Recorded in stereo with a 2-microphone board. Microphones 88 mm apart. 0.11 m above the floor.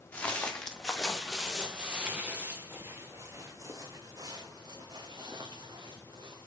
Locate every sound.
0.1 s footsteps: 15° left (ahead or behind), 2.0 m; by 6.5 s 60° right (ahead or behind), 3.5 m